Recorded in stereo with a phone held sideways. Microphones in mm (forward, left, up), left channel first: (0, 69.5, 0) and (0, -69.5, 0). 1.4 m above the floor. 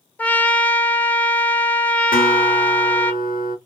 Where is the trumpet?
10° left (ahead or behind), 0.7 m.